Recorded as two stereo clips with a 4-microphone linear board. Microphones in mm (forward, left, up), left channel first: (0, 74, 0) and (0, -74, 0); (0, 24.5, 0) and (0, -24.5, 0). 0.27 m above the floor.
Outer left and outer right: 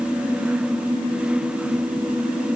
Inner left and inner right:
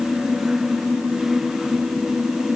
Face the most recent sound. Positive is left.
No sound to turn to.